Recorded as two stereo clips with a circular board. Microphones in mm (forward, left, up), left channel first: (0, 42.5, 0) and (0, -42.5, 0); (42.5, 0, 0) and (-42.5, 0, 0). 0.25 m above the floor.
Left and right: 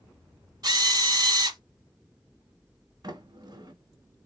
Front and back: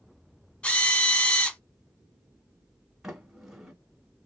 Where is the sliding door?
100° right, 1.6 m.